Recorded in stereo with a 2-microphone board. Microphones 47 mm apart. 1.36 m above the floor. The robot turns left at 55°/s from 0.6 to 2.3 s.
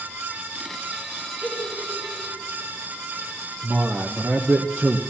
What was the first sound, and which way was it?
A giggle, 25° left (ahead or behind).